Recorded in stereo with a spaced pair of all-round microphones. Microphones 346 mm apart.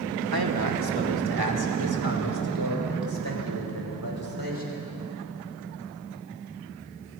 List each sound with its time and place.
0.3 s a man speaking: 80° right, 2.5 m; by 4.8 s 70° right (ahead or behind), 8 m